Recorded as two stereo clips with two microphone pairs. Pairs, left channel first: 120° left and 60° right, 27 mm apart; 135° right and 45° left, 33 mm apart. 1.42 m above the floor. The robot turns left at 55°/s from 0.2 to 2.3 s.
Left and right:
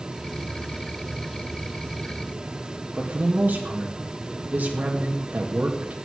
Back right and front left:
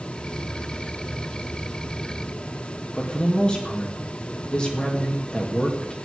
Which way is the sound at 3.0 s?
70° right.